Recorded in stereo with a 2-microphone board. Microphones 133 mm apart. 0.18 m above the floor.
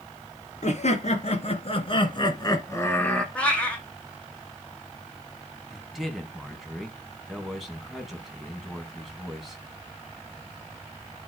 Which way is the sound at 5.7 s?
Centre (ahead or behind).